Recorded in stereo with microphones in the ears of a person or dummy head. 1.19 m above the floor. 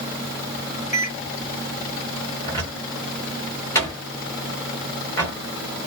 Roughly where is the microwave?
Left.